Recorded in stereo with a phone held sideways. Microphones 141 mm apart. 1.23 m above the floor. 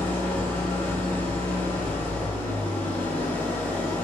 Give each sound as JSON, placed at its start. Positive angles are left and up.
{"t": 0.0, "sound": "an engine running", "side_deg": 10, "distance_m": 0.7}